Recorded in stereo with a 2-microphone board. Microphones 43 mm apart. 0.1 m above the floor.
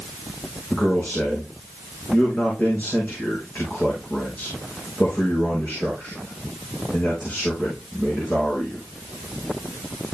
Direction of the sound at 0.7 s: 40° left (ahead or behind).